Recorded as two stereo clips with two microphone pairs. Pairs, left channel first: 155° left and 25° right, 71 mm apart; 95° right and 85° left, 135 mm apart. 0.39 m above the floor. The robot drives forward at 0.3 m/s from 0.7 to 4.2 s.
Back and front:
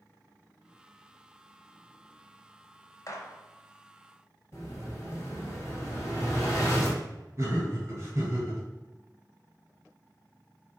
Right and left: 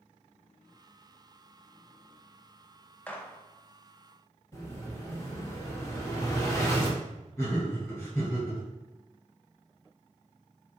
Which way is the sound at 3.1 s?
175° right.